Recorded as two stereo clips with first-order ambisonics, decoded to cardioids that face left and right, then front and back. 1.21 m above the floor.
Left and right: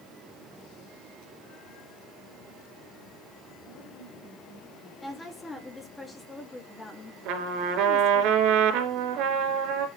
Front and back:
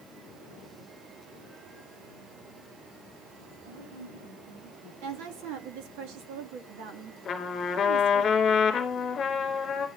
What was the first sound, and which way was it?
A woman speaking, 175° left.